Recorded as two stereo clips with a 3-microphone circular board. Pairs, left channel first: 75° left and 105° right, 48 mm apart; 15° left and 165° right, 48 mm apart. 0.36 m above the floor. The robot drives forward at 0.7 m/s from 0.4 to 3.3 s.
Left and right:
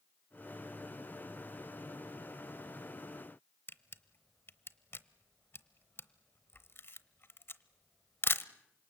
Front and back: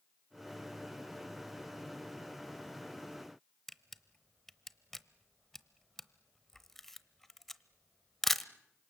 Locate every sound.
3.7 s a camera shutter: 100° left, 0.8 m